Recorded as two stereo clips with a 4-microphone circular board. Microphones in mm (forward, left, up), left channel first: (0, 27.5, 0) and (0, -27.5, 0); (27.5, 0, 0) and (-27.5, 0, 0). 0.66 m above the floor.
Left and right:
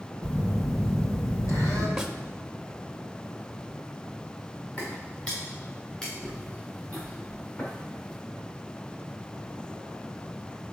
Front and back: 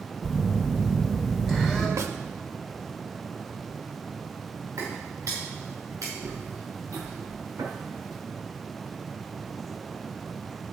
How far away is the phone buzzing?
About 3 m.